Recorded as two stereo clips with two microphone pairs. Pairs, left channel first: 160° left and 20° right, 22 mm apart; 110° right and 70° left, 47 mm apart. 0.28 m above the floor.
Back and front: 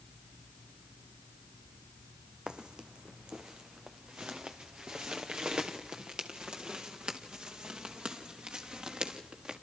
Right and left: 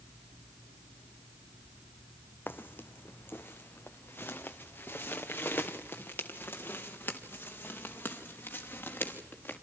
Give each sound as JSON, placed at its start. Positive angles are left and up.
{"t": 2.5, "sound": "footsteps", "azimuth_deg": -70, "distance_m": 0.9}